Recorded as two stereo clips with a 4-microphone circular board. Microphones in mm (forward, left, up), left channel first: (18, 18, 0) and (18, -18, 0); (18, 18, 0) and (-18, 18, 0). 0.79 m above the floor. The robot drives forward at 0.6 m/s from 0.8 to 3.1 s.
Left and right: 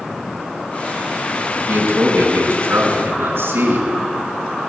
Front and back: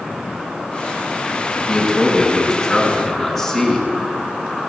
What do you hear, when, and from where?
1.6 s a man speaking: 80° right, 8 m; by 3.9 s 85° right, 8 m